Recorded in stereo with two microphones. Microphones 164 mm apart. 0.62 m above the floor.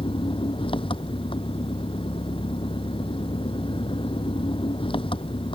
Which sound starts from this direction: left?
An engine running, at 0.0 s.